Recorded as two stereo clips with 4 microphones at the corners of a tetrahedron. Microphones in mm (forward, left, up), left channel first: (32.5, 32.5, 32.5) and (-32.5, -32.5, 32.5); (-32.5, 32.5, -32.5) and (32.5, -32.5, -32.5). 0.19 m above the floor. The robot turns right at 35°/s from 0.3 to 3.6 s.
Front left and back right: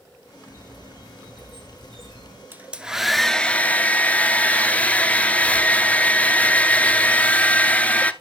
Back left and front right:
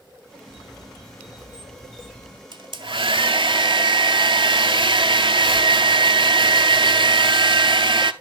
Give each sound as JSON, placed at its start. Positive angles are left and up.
{"t": 0.5, "sound": "a squeak", "azimuth_deg": 160, "distance_m": 6.0}
{"t": 2.5, "sound": "a hair dryer", "azimuth_deg": -65, "distance_m": 0.6}